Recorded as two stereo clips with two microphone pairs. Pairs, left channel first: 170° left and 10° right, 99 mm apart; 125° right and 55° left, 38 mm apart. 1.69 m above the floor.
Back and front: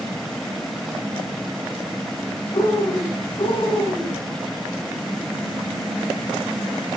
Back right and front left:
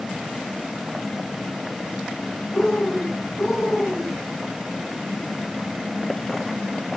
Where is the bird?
145° left, 9.5 m.